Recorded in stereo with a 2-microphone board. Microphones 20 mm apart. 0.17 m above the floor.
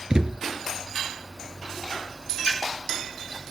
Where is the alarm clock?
No alarm clock in this recording.